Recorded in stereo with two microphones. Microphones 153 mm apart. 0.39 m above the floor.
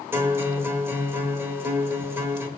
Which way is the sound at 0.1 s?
15° right (ahead or behind).